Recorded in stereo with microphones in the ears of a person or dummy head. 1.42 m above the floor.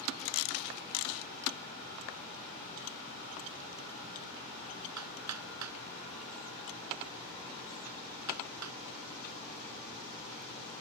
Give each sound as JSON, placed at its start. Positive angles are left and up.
{"t": 5.0, "sound": "hammering", "side_deg": -85}